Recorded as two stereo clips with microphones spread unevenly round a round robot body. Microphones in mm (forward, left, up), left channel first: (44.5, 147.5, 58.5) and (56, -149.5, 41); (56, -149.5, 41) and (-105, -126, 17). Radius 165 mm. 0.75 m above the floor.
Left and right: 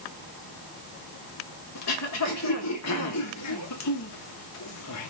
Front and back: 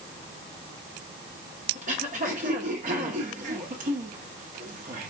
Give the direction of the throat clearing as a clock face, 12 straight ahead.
8 o'clock.